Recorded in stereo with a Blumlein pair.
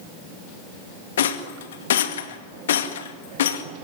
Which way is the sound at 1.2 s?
60° left.